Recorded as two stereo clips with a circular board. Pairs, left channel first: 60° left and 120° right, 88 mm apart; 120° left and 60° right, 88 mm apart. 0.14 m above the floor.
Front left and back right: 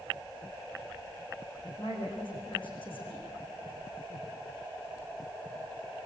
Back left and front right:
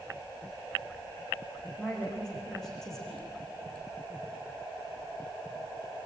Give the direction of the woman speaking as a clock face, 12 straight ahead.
11 o'clock.